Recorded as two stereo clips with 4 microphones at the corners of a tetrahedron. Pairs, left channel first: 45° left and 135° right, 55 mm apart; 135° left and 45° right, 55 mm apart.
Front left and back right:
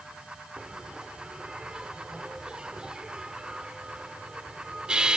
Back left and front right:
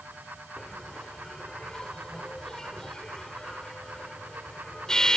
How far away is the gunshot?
No gunshot in this recording.